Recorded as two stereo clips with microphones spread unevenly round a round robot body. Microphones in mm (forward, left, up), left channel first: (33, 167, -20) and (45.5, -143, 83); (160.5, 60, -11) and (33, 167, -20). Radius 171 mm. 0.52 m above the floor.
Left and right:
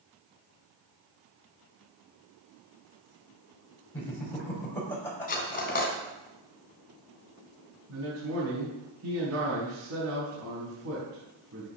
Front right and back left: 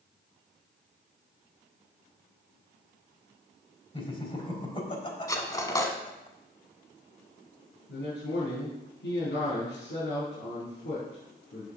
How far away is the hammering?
I don't hear hammering.